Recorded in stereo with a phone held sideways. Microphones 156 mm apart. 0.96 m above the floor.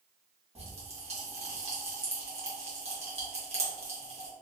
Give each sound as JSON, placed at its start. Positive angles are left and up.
{"t": 0.6, "sound": "a pop", "side_deg": -45, "distance_m": 1.0}